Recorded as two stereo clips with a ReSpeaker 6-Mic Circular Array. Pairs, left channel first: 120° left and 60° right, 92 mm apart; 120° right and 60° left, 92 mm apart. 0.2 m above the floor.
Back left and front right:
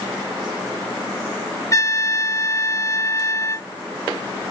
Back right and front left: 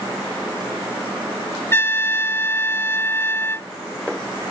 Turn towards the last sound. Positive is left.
turn(degrees=175)